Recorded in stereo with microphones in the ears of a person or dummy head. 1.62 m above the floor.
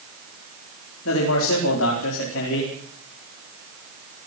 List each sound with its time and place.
1.1 s a man speaking: 75° left (ahead or behind), 4.5 m